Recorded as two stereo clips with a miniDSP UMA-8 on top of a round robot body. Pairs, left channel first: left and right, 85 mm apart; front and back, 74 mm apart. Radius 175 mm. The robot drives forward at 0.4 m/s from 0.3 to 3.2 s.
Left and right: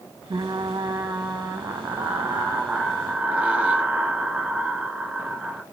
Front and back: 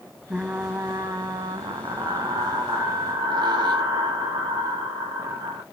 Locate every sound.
0.3 s frying: 105° right, 0.5 m; by 5.6 s 165° right, 1.4 m